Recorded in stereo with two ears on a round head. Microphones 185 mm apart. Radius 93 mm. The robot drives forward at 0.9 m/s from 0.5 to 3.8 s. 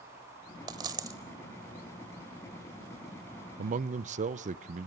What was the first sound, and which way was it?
A dropped coin, 20° right (ahead or behind).